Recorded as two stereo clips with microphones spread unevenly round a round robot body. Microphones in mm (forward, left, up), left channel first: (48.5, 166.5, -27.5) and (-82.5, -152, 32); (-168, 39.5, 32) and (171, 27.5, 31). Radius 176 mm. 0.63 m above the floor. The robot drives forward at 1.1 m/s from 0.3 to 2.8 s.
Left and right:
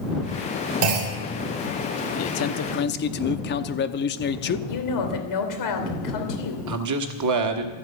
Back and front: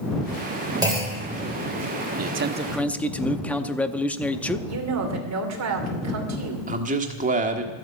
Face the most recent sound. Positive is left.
turn(degrees=-70)